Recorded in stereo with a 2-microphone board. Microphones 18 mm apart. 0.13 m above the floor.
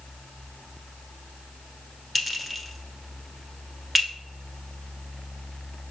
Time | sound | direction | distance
2.1 | a clink | 5° right (ahead or behind) | 0.8 m